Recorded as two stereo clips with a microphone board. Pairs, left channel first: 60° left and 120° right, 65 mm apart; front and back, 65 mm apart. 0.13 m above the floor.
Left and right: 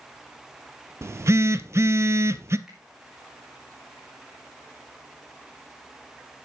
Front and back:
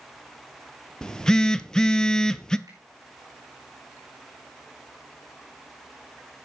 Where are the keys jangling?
I don't hear keys jangling.